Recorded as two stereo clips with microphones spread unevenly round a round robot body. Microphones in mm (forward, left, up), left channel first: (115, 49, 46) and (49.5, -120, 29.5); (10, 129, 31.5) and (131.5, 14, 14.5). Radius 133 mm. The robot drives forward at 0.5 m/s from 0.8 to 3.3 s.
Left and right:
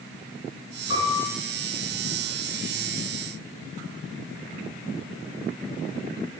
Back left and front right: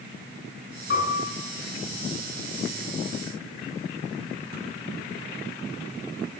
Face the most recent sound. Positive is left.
turn(degrees=135)